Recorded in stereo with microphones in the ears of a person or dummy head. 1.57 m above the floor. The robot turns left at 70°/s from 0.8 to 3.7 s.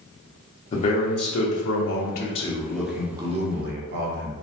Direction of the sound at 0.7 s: 145° left.